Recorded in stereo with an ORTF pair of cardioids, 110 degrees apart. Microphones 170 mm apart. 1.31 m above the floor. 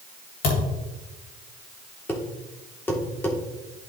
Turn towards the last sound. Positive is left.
turn(degrees=10)